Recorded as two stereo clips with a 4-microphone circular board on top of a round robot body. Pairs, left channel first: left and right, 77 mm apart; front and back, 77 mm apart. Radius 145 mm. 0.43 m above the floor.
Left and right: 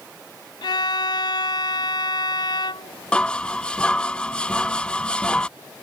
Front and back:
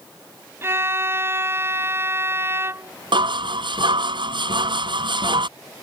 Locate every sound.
0.6 s a violin: 120° left
3.1 s dishes clattering: 165° left